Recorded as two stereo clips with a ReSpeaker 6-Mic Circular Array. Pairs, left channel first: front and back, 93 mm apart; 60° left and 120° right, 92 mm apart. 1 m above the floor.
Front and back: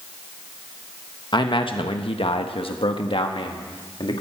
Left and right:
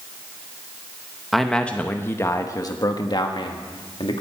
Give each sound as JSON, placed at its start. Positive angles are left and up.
{"t": 1.3, "sound": "a man speaking", "azimuth_deg": -30, "distance_m": 1.1}